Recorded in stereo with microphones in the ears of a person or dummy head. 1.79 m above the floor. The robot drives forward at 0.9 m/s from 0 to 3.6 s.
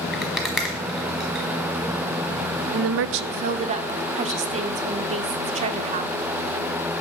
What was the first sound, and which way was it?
A rattle, 5° right (ahead or behind).